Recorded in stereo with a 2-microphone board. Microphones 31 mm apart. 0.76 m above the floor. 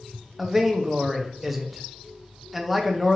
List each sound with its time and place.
0.4 s a man speaking: centre (ahead or behind), 0.5 m